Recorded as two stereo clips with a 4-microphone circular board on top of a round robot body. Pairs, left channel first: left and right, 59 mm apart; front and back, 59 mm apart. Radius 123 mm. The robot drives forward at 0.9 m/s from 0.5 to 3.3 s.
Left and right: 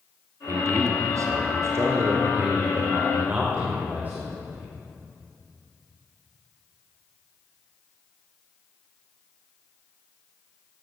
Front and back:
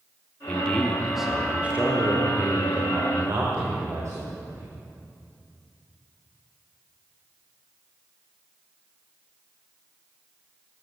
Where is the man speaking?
65° right, 1.5 m; by 4.7 s 150° right, 2.5 m.